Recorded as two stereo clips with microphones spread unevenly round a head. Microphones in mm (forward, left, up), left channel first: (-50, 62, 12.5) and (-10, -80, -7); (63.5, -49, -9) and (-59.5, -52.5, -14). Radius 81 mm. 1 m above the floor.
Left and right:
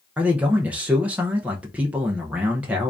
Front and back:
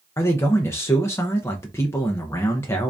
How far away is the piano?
No piano in this recording.